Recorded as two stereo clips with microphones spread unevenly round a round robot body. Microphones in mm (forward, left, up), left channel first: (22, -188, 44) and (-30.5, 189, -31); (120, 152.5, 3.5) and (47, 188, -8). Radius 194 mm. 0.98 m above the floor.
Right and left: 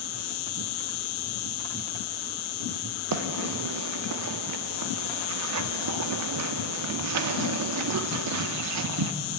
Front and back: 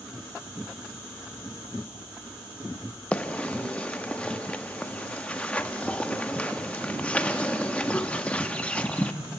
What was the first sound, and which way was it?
An insect, 110° right.